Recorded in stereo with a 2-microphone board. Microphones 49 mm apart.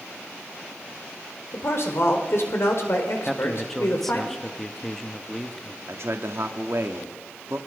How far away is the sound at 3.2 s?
About 1.4 m.